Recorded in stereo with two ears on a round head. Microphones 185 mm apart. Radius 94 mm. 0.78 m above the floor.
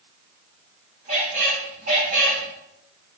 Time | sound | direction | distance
1.1 | a squeak | 35° right (ahead or behind) | 2.5 m